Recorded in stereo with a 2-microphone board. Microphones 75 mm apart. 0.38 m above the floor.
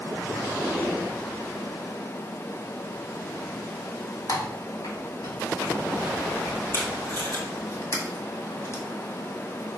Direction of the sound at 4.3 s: 55° left (ahead or behind).